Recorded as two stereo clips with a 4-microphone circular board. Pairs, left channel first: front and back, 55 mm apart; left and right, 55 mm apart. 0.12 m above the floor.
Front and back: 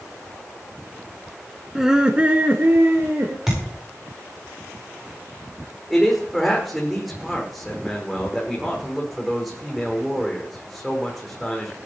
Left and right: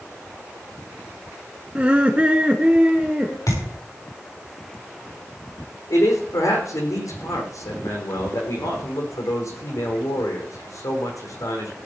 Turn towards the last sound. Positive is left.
turn(degrees=90)